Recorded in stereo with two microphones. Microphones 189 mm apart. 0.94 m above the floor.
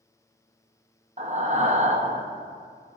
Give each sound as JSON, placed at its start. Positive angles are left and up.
{"t": 1.2, "sound": "breathing", "side_deg": -40, "distance_m": 0.6}